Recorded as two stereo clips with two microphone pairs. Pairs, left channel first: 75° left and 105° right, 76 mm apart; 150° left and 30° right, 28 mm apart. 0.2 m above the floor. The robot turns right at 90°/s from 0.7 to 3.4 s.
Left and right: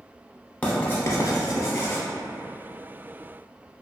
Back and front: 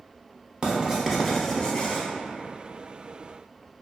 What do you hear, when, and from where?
0.6 s writing: 10° left, 0.7 m; by 2.0 s 130° left, 0.7 m